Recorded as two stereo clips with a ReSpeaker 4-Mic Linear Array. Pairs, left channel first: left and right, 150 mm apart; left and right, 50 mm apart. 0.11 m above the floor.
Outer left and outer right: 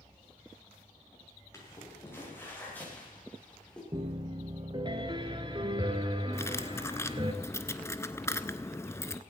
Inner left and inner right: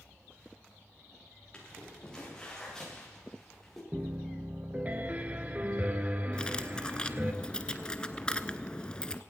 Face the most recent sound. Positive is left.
turn(degrees=20)  # may be behind; listen again after turning